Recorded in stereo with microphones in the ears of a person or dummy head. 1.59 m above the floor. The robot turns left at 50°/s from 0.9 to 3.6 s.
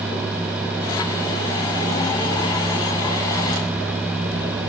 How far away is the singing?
I don't hear singing.